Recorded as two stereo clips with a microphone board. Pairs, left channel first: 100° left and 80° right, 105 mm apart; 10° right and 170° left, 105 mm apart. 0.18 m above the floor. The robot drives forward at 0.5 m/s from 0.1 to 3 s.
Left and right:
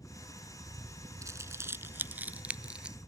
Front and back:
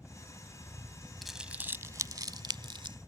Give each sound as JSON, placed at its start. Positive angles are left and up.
{"t": 0.0, "sound": "a helicopter", "azimuth_deg": 95}
{"t": 1.2, "sound": "crumpling", "azimuth_deg": -100}